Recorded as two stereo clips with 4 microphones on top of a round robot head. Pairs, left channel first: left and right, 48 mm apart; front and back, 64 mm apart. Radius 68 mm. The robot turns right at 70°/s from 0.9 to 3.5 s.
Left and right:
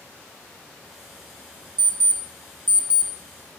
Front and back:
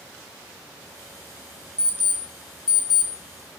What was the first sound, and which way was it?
An alarm clock, 100° right.